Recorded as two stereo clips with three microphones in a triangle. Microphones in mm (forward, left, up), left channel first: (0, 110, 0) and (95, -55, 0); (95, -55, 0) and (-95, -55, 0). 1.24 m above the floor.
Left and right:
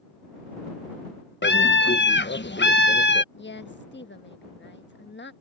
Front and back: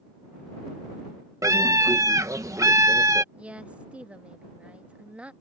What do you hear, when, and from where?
1.4 s a scream: 110° left
3.3 s a woman speaking: 95° left